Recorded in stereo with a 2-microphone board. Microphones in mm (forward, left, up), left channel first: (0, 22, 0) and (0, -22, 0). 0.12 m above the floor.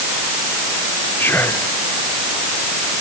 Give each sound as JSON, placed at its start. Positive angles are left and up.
{"t": 1.2, "sound": "whispering", "side_deg": 55}